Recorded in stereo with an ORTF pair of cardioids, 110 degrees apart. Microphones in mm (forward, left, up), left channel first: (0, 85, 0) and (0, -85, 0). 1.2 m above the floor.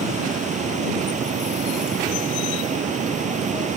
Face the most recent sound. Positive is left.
turn(degrees=-45)